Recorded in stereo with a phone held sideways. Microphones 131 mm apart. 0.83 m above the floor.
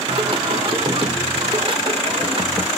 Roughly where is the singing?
Right.